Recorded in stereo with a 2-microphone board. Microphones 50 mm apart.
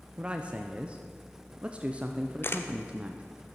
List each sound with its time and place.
0.2 s a man speaking: 25° right (ahead or behind), 0.6 m
2.4 s a camera shutter: 55° left (ahead or behind), 0.6 m